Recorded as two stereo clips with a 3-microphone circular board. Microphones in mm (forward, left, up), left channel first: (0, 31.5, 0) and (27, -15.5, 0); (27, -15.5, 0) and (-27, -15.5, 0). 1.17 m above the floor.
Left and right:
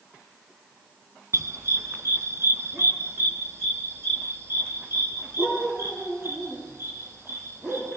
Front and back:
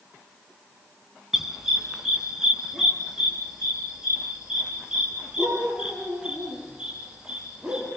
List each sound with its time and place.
1.3 s a dog barking: 95° right, 3 m; by 7.9 s 105° right, 12.5 m